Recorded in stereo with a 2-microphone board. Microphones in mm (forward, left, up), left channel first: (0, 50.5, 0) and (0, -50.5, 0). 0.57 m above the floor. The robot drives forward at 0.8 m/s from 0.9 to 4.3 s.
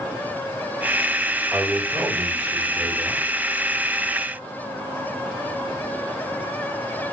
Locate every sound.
1.5 s a man speaking: 20° right (ahead or behind), 2 m; by 3.2 s 15° right (ahead or behind), 3.5 m